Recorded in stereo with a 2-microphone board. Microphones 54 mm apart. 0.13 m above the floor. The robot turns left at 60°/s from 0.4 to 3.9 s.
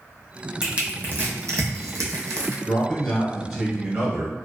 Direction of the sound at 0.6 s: 10° right (ahead or behind).